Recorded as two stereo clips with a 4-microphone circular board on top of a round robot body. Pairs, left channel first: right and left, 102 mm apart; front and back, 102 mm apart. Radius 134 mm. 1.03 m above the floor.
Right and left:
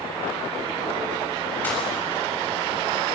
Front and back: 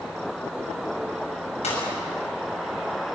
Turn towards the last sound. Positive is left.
turn(degrees=-15)